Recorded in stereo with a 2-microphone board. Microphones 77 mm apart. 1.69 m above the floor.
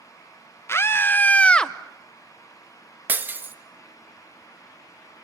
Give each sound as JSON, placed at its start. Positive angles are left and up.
{"t": 0.7, "sound": "a scream", "side_deg": 35, "distance_m": 1.3}
{"t": 3.1, "sound": "breaking glass", "side_deg": -25, "distance_m": 1.4}